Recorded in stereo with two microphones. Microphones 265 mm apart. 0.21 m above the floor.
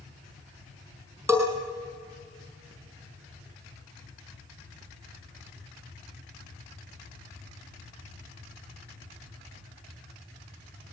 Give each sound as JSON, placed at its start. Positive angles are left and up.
{"t": 1.3, "sound": "a bell", "side_deg": -10, "distance_m": 5.0}